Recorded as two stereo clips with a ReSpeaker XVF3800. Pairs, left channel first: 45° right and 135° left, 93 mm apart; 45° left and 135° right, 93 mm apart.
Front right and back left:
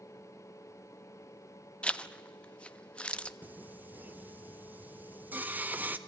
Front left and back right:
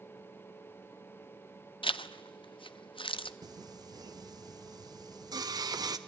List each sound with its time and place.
1.8 s a zipper: 30° left, 0.5 m
3.4 s singing: 160° right, 0.8 m